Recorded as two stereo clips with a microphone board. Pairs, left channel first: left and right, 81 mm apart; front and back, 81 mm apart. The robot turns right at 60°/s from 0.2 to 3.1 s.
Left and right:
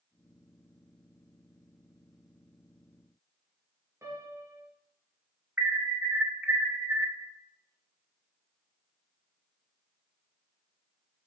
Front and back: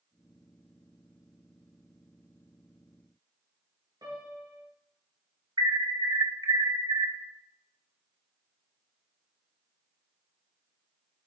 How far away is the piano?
About 5 m.